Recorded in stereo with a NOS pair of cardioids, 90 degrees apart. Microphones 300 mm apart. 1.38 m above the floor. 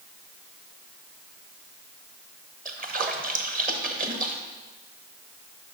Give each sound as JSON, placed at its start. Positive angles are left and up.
{"t": 2.6, "sound": "a splash", "azimuth_deg": -30, "distance_m": 1.0}